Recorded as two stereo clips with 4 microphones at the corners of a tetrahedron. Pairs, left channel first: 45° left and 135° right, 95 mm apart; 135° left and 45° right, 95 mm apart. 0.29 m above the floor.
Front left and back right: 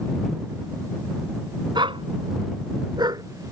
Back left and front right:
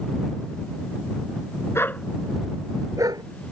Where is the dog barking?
165° right; by 3.2 s 90° right.